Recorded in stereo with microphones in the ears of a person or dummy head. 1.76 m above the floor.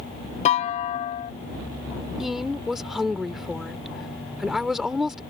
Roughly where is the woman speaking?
Centre.